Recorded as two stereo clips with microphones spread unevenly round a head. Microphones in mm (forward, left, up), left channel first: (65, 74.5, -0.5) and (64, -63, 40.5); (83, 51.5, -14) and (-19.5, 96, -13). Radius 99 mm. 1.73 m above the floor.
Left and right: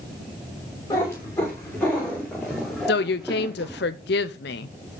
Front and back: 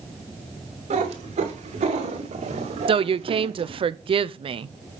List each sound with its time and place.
0.9 s a cat meowing: 170° left, 3 m; by 3.8 s 160° right, 1.9 m
2.9 s a woman speaking: 120° left, 0.6 m